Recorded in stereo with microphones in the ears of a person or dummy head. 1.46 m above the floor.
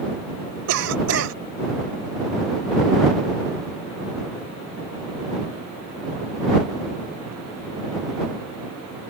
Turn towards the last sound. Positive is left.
turn(degrees=-80)